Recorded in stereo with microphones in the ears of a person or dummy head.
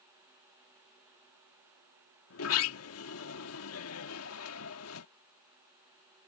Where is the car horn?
I don't hear a car horn.